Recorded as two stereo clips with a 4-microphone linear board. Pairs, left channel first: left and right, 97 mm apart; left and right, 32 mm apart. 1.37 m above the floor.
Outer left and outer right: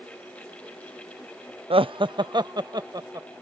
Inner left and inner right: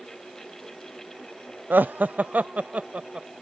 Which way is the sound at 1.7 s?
70° right (ahead or behind).